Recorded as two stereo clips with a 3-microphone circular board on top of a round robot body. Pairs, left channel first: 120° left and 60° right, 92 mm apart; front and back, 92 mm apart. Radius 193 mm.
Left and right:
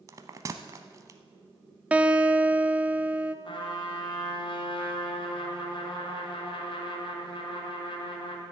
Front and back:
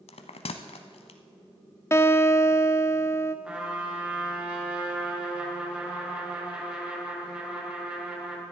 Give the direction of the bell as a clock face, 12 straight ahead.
12 o'clock.